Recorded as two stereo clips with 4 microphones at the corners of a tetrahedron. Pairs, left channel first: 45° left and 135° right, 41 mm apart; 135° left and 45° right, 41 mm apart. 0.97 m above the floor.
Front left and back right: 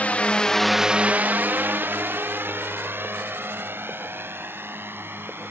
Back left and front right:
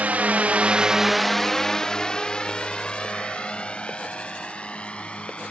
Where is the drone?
Straight ahead; by 5.5 s 160° right.